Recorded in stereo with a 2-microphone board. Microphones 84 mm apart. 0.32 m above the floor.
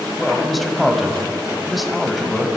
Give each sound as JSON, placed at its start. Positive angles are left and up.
{"t": 0.2, "sound": "a man speaking", "side_deg": 0, "distance_m": 1.6}